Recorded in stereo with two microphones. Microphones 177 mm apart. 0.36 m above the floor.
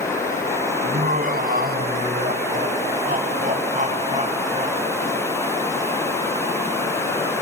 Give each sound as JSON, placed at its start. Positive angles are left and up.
{"t": 0.8, "sound": "laughter", "side_deg": -50, "distance_m": 3.0}